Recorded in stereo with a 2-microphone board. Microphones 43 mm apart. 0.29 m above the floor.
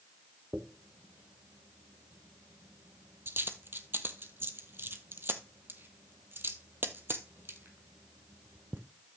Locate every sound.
0.5 s a dropped coin: 60° right (ahead or behind), 1.1 m